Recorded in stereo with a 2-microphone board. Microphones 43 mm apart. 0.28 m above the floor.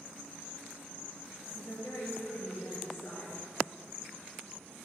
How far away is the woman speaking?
About 4 m.